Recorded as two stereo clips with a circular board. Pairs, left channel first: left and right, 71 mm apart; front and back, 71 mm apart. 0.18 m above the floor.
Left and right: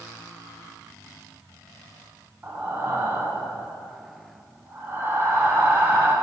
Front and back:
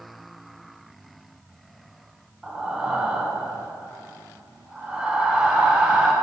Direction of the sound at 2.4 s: 110° right.